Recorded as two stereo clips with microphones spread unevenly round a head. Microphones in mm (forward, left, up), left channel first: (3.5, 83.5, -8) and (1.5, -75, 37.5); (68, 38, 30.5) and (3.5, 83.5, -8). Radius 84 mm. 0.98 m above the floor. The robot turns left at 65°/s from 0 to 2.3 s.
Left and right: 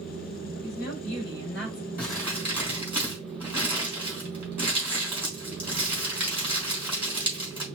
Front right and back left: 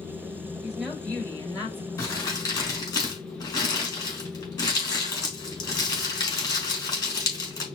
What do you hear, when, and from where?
0.6 s a woman speaking: 70° left, 4 m; by 1.9 s 10° right, 4 m
2.0 s crumpling: 5° left, 3.5 m; by 7.7 s 15° right, 3.5 m